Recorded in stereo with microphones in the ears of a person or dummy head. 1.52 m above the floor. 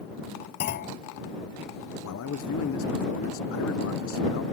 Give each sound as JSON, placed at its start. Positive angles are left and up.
{"t": 0.6, "sound": "a clunk", "side_deg": 50}
{"t": 2.0, "sound": "a man speaking", "side_deg": 70}